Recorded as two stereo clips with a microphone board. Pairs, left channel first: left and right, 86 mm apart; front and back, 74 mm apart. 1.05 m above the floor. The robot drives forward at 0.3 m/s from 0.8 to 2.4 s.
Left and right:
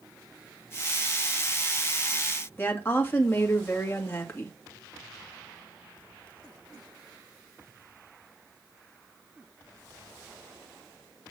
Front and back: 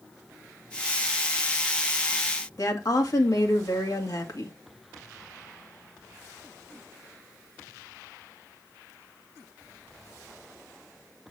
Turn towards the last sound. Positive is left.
turn(degrees=30)